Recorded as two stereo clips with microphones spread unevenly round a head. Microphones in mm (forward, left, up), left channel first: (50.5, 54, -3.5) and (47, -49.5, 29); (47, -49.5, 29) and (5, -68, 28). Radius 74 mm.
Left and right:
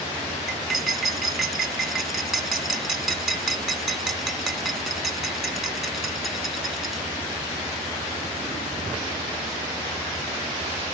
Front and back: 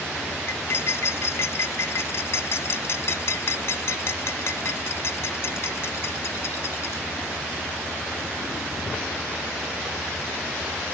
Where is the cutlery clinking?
5° right.